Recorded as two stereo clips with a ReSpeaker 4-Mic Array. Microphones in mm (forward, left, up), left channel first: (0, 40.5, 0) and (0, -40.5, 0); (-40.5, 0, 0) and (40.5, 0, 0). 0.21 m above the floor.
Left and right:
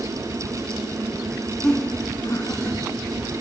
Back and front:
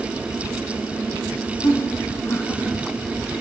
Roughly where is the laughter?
Behind.